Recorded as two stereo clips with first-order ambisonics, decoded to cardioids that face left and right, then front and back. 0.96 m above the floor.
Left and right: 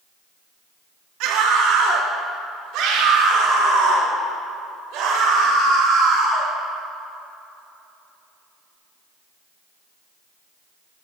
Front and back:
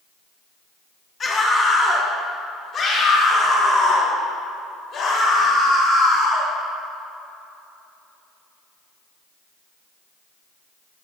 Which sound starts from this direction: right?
A scream, at 1.2 s.